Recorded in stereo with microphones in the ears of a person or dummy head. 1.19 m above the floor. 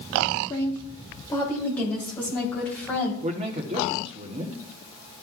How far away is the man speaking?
About 0.9 m.